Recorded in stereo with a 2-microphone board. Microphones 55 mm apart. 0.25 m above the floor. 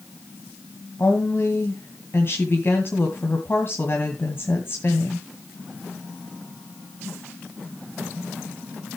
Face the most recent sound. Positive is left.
turn(degrees=45)  # may be behind; listen again after turning